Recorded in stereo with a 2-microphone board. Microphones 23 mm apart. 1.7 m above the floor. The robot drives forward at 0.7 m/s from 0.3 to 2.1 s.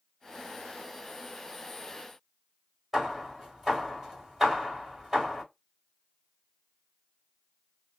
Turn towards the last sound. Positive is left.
turn(degrees=-10)  # may be behind; listen again after turning